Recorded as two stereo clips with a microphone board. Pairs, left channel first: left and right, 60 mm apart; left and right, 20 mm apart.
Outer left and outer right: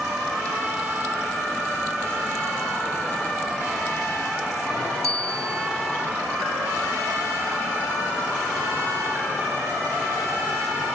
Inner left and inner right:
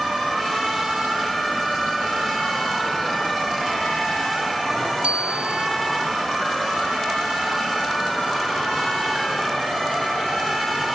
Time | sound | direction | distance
5.0 | a bicycle bell | 70° right (ahead or behind) | ?